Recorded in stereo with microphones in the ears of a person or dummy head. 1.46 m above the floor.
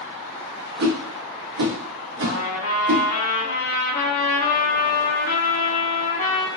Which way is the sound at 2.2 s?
45° left (ahead or behind).